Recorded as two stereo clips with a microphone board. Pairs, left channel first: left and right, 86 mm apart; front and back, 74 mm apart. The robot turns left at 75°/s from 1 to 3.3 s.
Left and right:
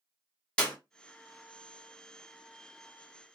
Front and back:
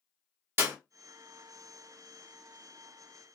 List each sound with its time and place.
0.6 s a clap: 160° left, 1.2 m